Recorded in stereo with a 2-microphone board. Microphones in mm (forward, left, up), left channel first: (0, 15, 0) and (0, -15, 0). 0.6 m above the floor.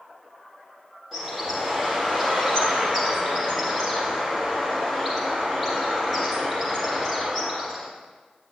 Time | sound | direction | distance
1.1 | a bird | 5° right (ahead or behind) | 6 m